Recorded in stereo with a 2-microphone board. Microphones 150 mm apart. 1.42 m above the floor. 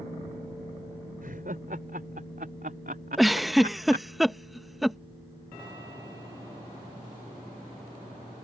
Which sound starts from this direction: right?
Laughter, at 1.2 s.